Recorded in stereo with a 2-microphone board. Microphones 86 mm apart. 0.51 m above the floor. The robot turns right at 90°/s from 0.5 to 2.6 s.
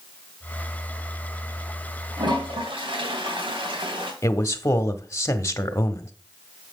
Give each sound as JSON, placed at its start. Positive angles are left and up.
{"t": 2.2, "sound": "a toilet flushing", "azimuth_deg": -120, "distance_m": 3.0}
{"t": 4.2, "sound": "a man speaking", "side_deg": 30, "distance_m": 1.0}